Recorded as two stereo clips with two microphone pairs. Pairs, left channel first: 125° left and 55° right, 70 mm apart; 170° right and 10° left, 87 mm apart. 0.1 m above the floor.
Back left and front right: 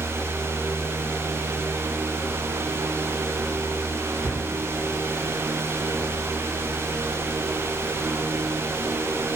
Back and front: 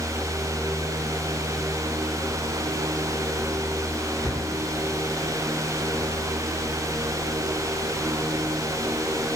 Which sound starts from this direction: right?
A cupboard door, at 4.2 s.